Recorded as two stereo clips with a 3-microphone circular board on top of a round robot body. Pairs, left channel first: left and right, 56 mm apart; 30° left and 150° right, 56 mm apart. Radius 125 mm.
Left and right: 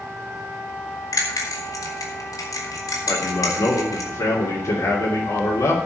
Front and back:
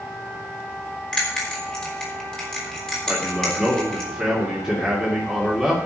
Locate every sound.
1.1 s a bell: 105° left, 3.5 m
3.1 s a man speaking: 115° left, 3 m